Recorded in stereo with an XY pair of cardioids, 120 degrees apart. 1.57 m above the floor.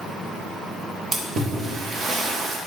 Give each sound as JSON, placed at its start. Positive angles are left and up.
{"t": 1.1, "sound": "a splash", "azimuth_deg": -45, "distance_m": 1.0}